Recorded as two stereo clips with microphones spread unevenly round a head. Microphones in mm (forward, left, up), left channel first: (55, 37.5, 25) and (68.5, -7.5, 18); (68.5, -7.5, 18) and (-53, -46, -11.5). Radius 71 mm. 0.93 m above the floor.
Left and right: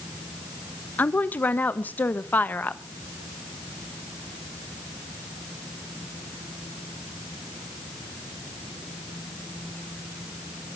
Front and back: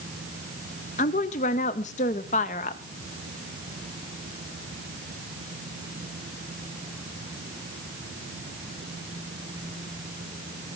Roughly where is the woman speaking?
Ahead left.